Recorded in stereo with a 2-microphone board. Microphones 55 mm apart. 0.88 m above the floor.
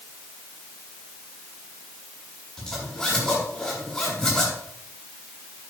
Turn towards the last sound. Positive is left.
turn(degrees=15)  # may be behind; listen again after turning